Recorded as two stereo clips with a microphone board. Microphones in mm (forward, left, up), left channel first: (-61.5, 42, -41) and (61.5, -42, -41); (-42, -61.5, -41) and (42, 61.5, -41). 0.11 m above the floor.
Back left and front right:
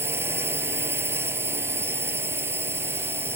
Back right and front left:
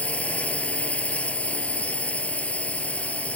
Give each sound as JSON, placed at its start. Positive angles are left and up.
{"t": 0.0, "sound": "a drone", "azimuth_deg": -65}